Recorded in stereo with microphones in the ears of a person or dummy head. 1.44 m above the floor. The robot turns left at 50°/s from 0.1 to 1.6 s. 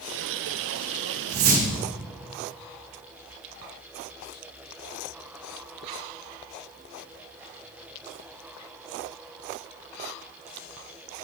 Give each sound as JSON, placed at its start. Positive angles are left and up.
{"t": 1.3, "sound": "a whoosh", "side_deg": -55, "distance_m": 1.6}